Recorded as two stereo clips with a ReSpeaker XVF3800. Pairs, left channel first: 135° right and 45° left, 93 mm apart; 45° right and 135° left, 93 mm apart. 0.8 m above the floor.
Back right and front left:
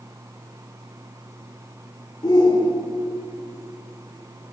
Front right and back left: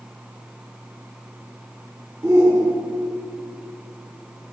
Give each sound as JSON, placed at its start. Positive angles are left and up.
{"t": 2.2, "sound": "a shout", "azimuth_deg": -170, "distance_m": 1.8}